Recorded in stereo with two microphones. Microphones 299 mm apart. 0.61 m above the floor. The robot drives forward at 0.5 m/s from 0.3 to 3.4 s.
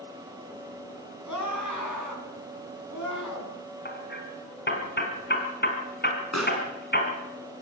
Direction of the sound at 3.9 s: 35° left (ahead or behind).